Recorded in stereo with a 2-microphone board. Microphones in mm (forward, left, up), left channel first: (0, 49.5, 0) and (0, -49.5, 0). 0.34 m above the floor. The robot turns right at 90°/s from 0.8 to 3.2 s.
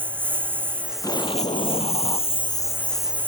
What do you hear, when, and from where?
0.0 s a lawn mower: 20° right; by 3.3 s 165° right
1.0 s an explosion: 30° left; by 2.3 s 145° left